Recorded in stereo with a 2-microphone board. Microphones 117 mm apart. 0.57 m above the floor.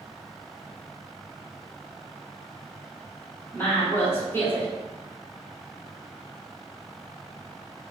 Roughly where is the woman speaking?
Left.